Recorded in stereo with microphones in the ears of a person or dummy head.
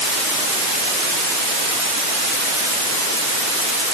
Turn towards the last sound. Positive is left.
No sound to turn to.